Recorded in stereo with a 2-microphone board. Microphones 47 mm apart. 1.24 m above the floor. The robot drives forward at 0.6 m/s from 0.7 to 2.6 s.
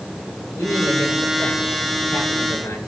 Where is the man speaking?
80° left, 5.5 m; by 2.8 s 85° left, 5.5 m.